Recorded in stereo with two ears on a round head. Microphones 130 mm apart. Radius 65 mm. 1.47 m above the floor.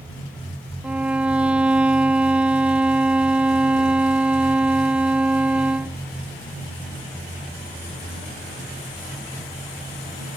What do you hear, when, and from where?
0.8 s a violin: 10° right (ahead or behind)